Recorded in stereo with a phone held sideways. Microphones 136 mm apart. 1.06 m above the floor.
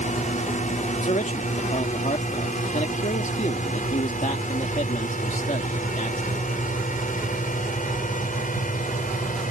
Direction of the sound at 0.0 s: 65° left (ahead or behind).